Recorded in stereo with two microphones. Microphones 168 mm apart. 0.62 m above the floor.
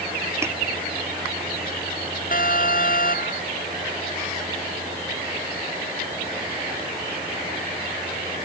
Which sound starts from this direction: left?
An alarm, at 2.3 s.